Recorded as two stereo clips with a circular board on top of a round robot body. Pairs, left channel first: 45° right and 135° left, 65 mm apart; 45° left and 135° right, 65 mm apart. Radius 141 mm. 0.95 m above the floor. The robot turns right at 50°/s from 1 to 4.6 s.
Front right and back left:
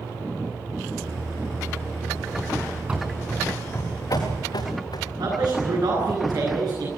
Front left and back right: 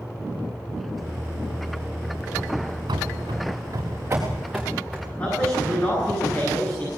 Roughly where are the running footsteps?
Behind right.